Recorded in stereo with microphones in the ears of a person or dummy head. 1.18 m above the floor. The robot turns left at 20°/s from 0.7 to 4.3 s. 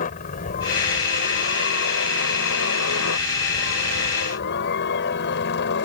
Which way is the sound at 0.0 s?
140° left.